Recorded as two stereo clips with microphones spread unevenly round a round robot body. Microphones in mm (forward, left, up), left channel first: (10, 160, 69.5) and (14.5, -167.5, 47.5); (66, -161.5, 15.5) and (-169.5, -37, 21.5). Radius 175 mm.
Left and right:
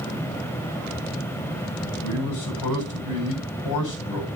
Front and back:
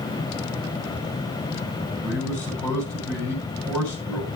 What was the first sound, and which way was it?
A man speaking, 65° left.